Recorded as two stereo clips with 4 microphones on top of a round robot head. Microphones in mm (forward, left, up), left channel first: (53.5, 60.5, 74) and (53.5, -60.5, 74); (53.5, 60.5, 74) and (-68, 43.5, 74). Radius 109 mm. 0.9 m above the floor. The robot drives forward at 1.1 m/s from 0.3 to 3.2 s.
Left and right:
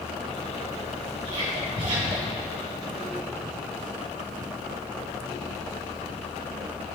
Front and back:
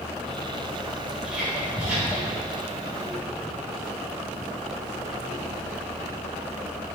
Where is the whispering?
85° right, 3.5 m; by 2.4 s 105° right, 3.5 m.